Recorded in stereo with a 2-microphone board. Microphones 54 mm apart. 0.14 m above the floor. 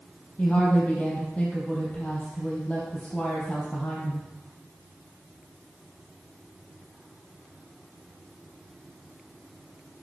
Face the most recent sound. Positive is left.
turn(degrees=20)  # may be behind; listen again after turning